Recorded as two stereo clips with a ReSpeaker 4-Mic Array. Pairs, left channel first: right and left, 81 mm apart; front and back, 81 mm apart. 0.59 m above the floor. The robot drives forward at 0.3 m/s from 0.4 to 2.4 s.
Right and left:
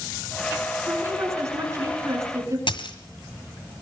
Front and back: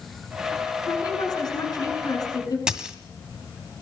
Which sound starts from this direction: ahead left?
A woman speaking, at 0.9 s.